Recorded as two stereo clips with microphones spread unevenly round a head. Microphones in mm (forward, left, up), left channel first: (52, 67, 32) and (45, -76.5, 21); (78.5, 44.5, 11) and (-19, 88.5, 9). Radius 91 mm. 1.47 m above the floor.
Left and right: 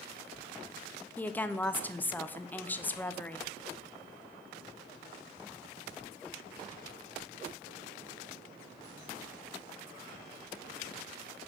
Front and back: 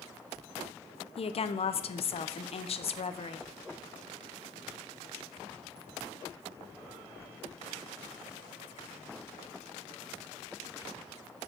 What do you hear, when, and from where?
1.2 s a woman speaking: 10° left, 0.5 m